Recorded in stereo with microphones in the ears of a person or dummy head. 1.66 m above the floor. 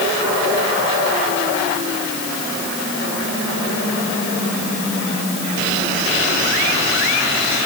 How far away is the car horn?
No car horn in this recording.